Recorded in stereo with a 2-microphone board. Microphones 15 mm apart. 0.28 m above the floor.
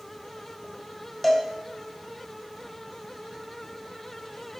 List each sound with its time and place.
1.2 s a cowbell: 5° left (ahead or behind), 1.1 m